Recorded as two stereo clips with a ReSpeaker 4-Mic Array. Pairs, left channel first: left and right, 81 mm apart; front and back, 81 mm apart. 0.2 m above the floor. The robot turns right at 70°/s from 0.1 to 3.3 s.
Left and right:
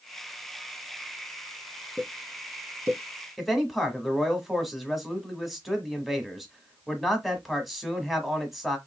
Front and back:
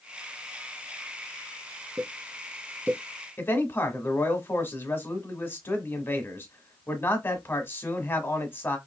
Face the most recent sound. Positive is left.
turn(degrees=0)